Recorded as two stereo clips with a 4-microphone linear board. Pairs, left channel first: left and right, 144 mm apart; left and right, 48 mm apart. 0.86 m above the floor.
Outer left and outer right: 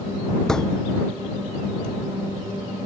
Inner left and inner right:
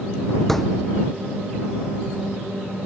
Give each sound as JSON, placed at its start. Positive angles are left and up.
{"t": 0.5, "sound": "a thud", "side_deg": 5}